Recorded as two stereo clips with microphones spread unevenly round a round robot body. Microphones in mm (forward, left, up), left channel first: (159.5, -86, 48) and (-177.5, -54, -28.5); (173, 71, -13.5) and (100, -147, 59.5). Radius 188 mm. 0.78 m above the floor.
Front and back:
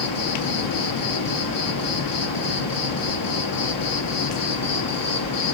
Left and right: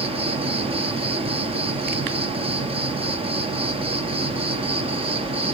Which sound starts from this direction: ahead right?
An insect, at 0.0 s.